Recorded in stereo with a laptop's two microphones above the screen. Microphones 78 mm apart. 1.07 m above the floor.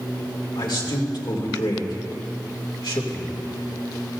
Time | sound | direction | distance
0.6 | a man speaking | 70° left (ahead or behind) | 2.5 m